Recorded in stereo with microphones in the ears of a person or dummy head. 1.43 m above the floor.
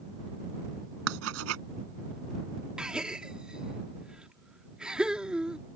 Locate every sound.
1.1 s writing: 85° right
2.8 s a gasp: 5° right (ahead or behind)